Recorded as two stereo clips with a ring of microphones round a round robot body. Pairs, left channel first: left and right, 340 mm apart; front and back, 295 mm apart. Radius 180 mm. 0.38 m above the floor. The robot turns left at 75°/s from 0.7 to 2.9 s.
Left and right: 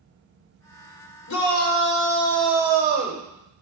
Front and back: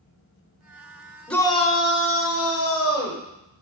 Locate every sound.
1.3 s a shout: 85° left, 1.4 m; by 3.2 s 35° right, 1.4 m